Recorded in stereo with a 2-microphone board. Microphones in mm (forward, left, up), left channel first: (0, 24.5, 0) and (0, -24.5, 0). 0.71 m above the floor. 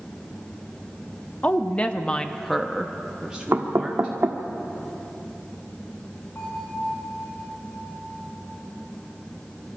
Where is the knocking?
60° right (ahead or behind), 1.4 m.